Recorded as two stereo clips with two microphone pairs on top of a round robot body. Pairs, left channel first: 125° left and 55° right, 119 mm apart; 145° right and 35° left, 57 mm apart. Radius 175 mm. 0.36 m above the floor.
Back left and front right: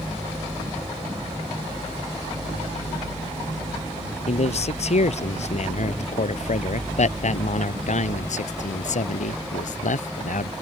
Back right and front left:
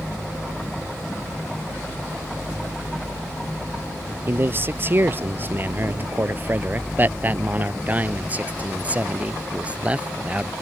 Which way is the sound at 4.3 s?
90° left.